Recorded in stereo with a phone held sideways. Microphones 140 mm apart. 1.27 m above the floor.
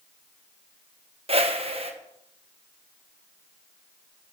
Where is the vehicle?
I don't hear a vehicle.